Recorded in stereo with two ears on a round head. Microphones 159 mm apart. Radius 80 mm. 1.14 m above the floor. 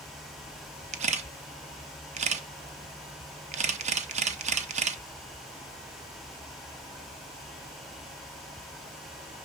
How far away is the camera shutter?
About 0.7 m.